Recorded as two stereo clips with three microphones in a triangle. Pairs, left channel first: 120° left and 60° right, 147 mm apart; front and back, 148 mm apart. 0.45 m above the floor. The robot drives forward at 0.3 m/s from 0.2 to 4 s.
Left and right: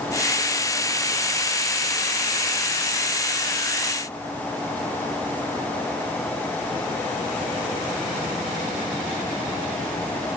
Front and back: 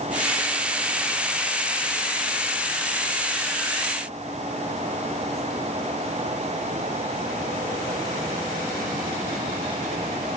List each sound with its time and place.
Only background noise.